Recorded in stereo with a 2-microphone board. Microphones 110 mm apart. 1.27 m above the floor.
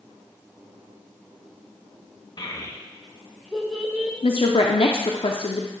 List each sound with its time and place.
2.4 s a child speaking: 40° left (ahead or behind), 0.9 m; by 4.1 s 10° right (ahead or behind), 1.9 m
4.2 s a woman speaking: 55° left (ahead or behind), 0.6 m